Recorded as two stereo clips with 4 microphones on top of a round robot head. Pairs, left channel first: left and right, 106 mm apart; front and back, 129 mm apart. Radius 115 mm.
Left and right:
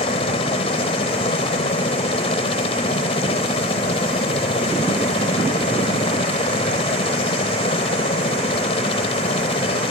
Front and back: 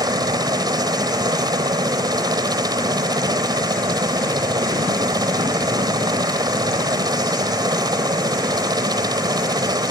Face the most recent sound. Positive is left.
turn(degrees=125)